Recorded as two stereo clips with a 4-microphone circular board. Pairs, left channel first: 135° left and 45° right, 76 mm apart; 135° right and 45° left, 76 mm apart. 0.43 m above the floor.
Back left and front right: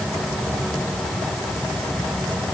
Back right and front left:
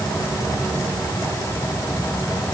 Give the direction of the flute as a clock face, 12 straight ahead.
No flute in this recording.